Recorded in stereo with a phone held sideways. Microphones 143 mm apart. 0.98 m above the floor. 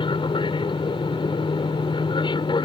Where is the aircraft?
35° left (ahead or behind).